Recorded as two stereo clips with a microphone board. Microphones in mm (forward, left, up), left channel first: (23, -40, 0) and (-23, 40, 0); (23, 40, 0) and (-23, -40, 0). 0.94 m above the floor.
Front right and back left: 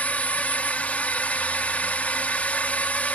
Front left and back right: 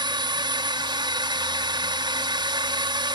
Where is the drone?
130° right.